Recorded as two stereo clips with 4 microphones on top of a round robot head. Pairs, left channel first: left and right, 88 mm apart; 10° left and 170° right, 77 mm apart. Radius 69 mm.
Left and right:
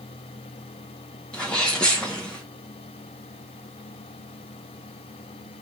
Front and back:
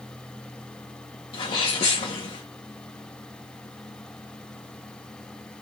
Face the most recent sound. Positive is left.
turn(degrees=10)